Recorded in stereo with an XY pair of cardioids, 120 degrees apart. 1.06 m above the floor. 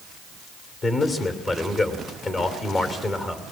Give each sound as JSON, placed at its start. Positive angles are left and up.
{"t": 0.8, "sound": "a man speaking", "azimuth_deg": 30, "distance_m": 3.0}